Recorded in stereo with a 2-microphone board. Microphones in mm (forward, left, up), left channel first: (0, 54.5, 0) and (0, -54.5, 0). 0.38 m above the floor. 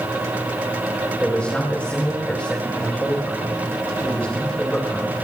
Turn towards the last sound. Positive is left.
turn(degrees=15)  # may be behind; listen again after turning